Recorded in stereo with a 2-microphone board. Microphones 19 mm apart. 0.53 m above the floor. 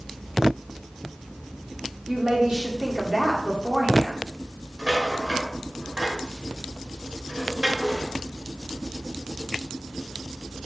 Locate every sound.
2.1 s a woman speaking: 35° right (ahead or behind), 1.5 m
4.8 s a rattle: 50° right (ahead or behind), 2.5 m